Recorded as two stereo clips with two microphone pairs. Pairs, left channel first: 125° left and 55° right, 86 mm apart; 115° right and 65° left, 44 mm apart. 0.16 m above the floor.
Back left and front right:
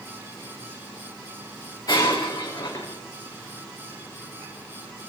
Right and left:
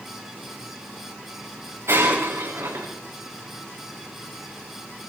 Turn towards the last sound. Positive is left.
turn(degrees=80)